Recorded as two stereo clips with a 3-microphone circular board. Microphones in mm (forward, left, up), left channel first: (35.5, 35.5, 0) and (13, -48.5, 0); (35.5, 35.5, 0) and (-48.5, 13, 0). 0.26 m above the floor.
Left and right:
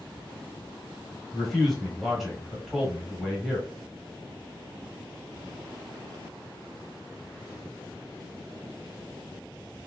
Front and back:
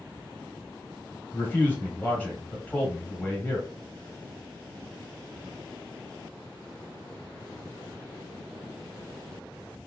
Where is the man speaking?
10° right, 1.2 m.